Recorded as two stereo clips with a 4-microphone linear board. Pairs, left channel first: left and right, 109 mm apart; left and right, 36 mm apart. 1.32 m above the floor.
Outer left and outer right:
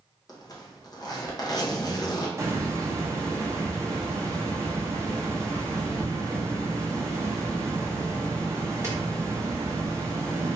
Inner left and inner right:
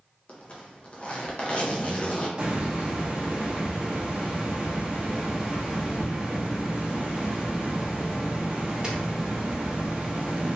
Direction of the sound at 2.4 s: 25° right (ahead or behind).